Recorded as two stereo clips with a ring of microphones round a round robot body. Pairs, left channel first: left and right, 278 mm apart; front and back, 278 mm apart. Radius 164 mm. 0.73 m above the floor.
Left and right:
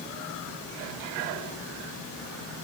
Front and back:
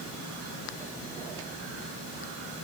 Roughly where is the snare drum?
I don't hear a snare drum.